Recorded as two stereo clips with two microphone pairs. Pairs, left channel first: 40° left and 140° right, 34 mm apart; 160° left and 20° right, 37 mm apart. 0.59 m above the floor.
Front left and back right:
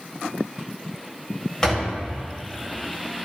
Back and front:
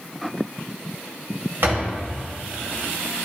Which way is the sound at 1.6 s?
25° right.